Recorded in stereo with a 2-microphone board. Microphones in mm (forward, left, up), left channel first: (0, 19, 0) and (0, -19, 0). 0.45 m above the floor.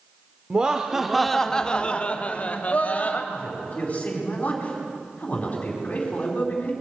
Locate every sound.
0.5 s laughter: 25° right (ahead or behind), 0.9 m; by 3.2 s 45° left (ahead or behind), 1.8 m
3.3 s a man speaking: 35° left (ahead or behind), 4 m